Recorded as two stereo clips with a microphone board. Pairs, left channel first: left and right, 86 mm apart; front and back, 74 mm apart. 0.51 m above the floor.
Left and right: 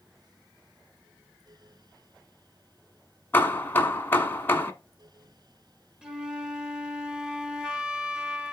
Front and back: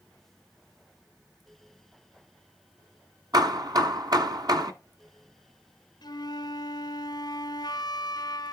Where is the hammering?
155° left, 1.1 m.